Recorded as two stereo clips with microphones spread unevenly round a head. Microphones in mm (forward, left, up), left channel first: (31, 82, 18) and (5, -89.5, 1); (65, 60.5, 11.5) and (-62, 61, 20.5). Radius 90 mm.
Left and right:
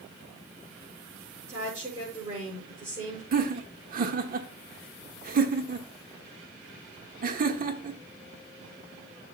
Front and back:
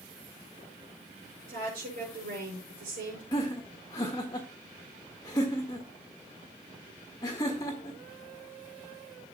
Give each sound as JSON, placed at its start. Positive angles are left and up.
{"t": 1.5, "sound": "a woman speaking", "azimuth_deg": -165, "distance_m": 5.5}
{"t": 3.3, "sound": "laughter", "azimuth_deg": -65, "distance_m": 1.5}